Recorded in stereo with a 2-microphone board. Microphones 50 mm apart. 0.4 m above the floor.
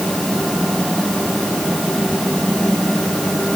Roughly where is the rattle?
I don't hear a rattle.